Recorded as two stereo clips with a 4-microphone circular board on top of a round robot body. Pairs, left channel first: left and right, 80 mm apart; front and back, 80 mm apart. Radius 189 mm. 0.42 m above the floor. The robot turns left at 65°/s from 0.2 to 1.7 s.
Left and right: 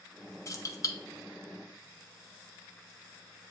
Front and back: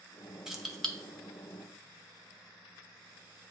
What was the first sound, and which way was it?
Keys jangling, 100° left.